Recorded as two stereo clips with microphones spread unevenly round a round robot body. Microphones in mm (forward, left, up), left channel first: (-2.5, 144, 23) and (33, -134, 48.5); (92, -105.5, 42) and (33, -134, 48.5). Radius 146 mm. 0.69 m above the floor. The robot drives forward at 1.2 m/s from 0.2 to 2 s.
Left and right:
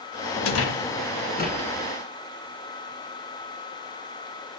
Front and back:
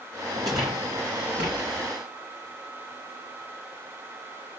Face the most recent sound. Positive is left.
turn(degrees=165)